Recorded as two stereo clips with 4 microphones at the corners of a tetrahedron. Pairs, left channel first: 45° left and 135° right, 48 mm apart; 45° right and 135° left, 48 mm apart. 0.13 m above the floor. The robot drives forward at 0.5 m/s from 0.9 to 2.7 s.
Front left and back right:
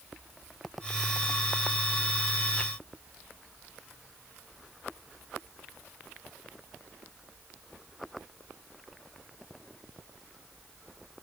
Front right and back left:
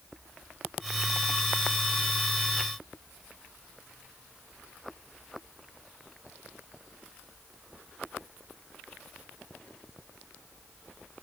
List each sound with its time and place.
Only background noise.